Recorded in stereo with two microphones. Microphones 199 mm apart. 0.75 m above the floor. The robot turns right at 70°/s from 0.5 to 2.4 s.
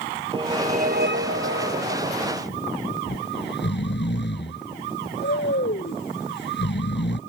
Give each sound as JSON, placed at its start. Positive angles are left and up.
{"t": 0.3, "sound": "a whoosh", "azimuth_deg": -155}
{"t": 3.1, "sound": "snoring", "side_deg": 65}